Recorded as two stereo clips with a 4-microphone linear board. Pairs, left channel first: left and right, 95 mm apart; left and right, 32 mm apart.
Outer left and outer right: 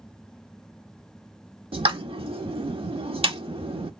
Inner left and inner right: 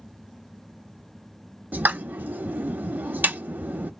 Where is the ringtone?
No ringtone in this recording.